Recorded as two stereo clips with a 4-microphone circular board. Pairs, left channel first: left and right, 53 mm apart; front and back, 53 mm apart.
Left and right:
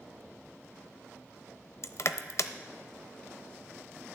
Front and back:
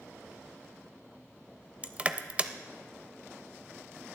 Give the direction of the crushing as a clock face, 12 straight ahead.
8 o'clock.